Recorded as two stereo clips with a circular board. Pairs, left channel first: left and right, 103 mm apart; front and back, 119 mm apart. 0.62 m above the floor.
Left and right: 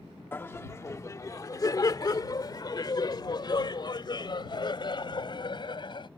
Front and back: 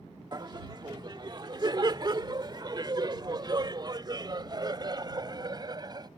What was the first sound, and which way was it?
Laughter, 150° left.